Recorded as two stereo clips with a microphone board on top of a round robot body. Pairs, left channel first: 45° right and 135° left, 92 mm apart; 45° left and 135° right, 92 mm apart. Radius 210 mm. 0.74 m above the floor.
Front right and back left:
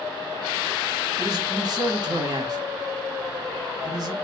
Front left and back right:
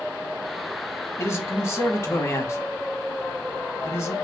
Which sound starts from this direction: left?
A man speaking, at 1.2 s.